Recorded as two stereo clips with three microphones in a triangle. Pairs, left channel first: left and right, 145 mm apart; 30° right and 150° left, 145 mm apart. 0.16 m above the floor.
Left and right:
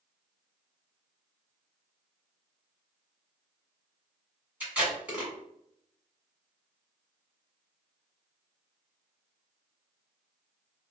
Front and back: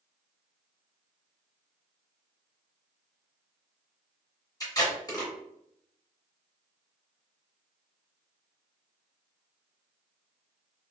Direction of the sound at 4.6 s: 20° right.